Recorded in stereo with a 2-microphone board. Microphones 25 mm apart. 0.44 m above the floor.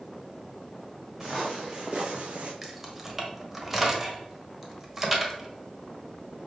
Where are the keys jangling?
10° right (ahead or behind), 1.3 m.